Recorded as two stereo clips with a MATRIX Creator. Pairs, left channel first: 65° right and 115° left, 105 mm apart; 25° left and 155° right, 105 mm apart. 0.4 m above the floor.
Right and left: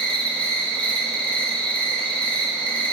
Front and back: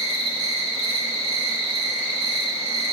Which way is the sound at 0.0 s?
10° left.